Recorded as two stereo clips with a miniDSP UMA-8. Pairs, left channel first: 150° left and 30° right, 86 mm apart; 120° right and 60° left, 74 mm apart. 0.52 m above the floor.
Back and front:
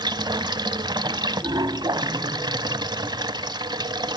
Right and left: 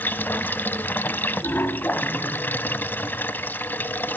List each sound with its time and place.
0.0 s running water: 60° right, 0.8 m